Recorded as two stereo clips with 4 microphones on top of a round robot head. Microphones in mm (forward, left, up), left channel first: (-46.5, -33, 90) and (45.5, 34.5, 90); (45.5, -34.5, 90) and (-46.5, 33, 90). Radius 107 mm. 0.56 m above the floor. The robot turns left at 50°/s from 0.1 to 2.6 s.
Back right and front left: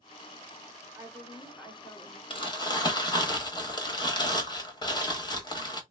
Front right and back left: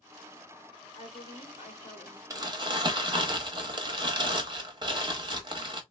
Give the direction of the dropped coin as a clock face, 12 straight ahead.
No dropped coin in this recording.